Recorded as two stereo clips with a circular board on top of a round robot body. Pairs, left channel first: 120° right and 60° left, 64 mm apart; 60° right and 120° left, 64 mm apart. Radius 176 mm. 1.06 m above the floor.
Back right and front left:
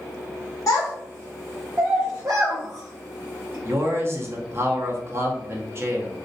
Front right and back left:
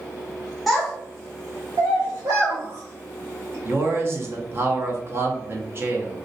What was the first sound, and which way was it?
A child speaking, 150° right.